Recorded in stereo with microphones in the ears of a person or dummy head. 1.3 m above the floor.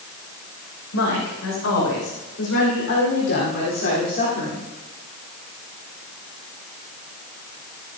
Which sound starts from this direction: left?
A woman speaking, at 0.9 s.